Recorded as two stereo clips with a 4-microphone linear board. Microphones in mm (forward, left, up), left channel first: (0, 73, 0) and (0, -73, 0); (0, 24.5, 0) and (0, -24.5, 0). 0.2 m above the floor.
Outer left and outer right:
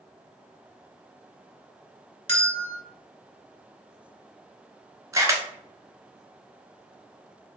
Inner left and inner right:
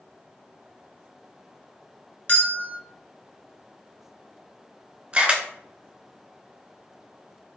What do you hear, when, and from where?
2.3 s a bell: 40° left (ahead or behind), 1.4 m
5.1 s a camera shutter: 20° right (ahead or behind), 0.8 m